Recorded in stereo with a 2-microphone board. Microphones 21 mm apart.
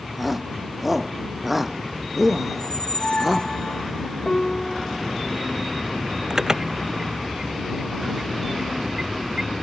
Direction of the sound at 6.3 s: 35° right (ahead or behind).